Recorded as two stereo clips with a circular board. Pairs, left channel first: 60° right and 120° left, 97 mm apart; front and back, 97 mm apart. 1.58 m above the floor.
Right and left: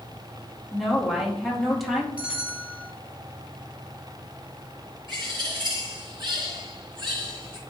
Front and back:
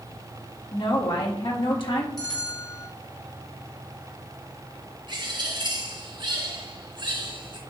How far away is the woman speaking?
About 2 m.